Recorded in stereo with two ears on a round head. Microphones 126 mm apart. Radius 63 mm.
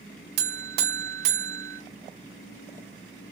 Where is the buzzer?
80° right, 0.5 m.